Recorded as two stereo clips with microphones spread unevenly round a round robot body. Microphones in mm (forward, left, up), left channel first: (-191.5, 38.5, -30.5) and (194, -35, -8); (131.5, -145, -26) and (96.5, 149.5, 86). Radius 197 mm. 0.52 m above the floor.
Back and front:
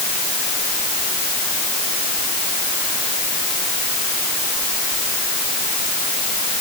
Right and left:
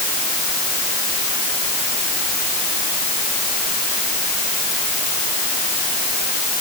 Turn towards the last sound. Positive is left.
No sound to turn to.